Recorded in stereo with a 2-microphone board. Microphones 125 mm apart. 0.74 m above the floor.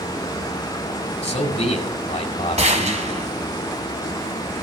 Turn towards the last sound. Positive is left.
turn(degrees=-60)  # may be behind; listen again after turning